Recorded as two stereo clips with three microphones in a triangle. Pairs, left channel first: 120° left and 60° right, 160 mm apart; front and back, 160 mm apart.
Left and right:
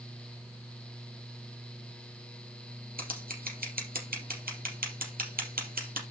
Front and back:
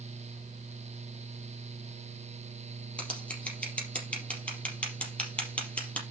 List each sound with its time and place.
3.0 s scissors: 80° right, 4.5 m